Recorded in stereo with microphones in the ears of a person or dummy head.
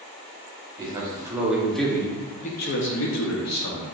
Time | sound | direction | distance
0.8 | a man speaking | 20° right (ahead or behind) | 1.3 m